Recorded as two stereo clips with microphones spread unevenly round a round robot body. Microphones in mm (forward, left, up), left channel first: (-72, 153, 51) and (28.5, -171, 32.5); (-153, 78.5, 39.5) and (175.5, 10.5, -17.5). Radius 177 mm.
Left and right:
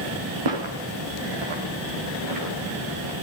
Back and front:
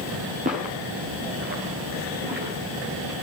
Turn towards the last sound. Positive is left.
turn(degrees=-75)